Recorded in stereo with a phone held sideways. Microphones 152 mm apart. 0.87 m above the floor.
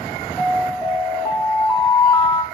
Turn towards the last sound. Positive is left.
turn(degrees=10)  # may be behind; listen again after turning